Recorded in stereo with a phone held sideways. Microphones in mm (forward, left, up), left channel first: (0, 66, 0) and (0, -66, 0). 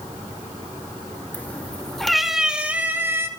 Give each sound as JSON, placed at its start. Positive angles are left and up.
{"t": 1.3, "sound": "a cat meowing", "side_deg": 15, "distance_m": 2.0}